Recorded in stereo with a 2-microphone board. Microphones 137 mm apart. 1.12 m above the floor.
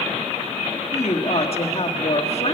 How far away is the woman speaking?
About 1.7 m.